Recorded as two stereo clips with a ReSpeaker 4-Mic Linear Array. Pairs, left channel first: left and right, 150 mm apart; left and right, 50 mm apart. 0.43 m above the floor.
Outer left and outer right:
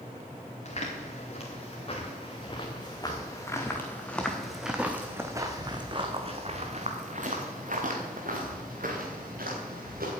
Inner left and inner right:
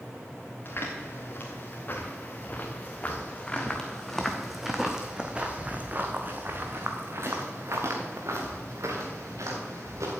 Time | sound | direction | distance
0.7 | footsteps | 45° left (ahead or behind) | 3 m